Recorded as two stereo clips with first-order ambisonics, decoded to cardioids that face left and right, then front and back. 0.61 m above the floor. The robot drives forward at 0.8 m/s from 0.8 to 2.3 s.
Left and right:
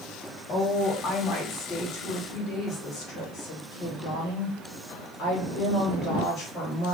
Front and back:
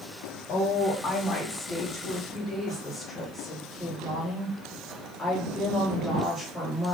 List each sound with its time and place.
0.5 s a woman speaking: 50° left, 2 m; by 6.9 s 90° left, 1.7 m